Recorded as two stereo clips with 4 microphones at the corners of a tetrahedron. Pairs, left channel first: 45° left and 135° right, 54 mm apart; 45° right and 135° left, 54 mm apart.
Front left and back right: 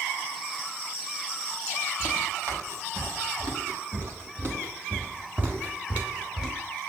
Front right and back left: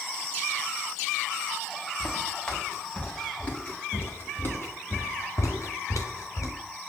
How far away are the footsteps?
About 3 m.